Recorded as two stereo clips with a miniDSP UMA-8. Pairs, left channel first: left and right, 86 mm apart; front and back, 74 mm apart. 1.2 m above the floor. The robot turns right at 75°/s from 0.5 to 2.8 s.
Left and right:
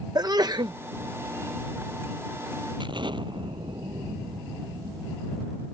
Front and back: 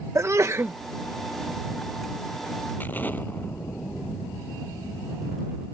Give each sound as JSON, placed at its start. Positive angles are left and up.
{"t": 0.1, "sound": "a sneeze", "azimuth_deg": -130}
{"t": 2.8, "sound": "an explosion", "azimuth_deg": -65}